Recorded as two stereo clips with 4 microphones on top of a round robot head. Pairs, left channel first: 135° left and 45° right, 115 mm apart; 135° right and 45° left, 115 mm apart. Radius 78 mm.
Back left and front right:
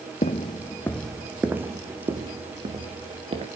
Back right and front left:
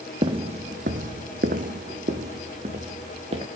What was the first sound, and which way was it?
Footsteps, 95° left.